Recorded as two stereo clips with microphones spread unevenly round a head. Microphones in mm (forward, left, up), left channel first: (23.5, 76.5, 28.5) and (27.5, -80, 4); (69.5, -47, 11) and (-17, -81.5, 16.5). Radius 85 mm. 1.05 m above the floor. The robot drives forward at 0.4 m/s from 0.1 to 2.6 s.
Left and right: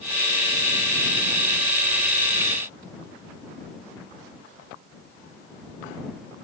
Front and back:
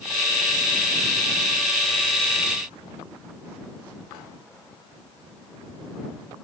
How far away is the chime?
No chime in this recording.